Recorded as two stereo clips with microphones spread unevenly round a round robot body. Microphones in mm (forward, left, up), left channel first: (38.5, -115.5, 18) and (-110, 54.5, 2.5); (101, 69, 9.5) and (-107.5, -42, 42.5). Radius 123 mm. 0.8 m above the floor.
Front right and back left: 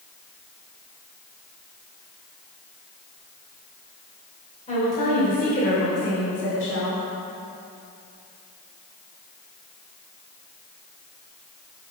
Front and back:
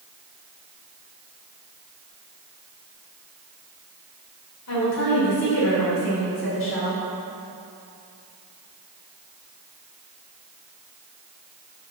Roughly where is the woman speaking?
Ahead.